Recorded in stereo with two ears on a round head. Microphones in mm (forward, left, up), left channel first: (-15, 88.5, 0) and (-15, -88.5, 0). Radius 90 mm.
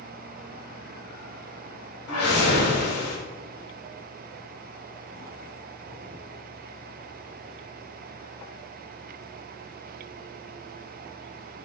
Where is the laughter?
No laughter in this recording.